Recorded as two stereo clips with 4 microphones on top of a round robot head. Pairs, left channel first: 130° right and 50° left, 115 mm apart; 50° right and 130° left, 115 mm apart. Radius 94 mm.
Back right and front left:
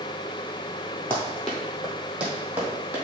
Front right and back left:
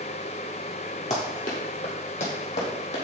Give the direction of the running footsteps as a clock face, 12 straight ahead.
2 o'clock.